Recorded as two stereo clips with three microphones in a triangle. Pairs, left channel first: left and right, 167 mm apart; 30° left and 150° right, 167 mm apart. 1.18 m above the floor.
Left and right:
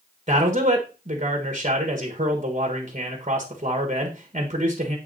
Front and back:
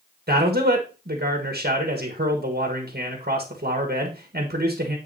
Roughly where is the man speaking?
Behind right.